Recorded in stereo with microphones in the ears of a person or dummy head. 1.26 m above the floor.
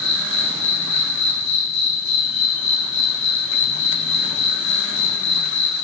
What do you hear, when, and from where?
0.0 s an insect: 70° left (ahead or behind), 2.5 m